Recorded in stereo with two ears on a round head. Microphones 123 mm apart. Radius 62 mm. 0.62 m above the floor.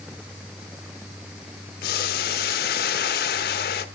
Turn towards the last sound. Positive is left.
turn(degrees=80)